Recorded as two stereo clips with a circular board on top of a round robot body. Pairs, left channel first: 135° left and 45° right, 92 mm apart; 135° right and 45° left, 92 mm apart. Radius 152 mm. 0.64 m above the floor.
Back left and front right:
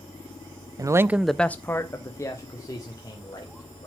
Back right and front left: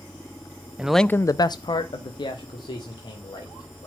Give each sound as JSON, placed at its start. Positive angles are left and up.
{"t": 0.8, "sound": "a man speaking", "azimuth_deg": -25, "distance_m": 0.6}